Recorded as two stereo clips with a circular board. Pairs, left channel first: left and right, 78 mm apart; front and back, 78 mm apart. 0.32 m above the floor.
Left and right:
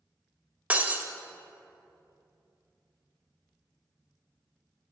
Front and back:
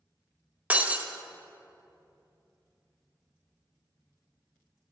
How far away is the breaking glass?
About 0.5 m.